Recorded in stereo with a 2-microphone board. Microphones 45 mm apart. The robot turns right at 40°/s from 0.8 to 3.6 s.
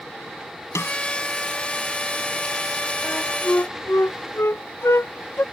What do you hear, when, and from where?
0.8 s a snare drum: 85° left; by 1.0 s 80° left
3.0 s a flute: 45° left (ahead or behind); by 5.4 s 65° left (ahead or behind)